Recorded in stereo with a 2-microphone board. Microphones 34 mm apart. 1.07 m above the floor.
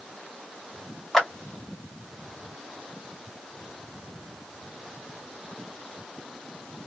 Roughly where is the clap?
Centre.